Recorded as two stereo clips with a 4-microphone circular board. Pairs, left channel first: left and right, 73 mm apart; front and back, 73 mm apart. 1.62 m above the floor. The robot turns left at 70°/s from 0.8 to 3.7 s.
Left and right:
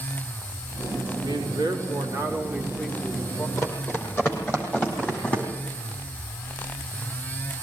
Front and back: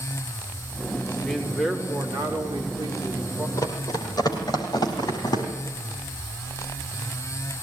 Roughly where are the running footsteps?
Ahead left.